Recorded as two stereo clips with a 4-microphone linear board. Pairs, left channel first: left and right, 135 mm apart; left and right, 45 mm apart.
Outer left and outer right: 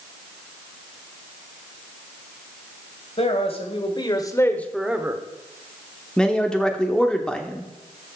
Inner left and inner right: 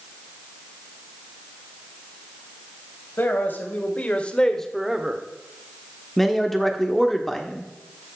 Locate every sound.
3.2 s a man speaking: 50° left (ahead or behind), 2 m; by 5.2 s 25° right (ahead or behind), 1.1 m
6.2 s a man speaking: 5° left (ahead or behind), 1.2 m